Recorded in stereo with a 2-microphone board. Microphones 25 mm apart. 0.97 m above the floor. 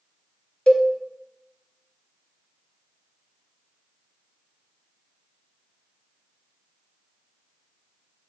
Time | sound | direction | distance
0.7 | a cowbell | 40° left (ahead or behind) | 0.7 m